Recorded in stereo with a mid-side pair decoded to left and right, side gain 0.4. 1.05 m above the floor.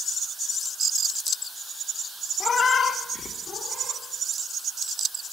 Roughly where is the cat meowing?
Ahead left.